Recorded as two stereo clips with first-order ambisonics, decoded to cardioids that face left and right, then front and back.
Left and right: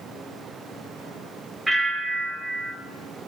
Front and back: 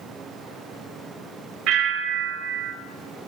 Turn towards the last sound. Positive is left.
turn(degrees=-170)